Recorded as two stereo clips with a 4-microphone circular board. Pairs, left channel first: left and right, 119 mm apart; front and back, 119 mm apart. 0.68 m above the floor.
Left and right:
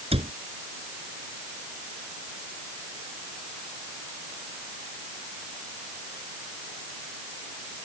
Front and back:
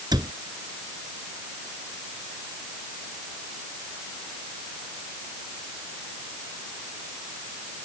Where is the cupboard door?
125° right.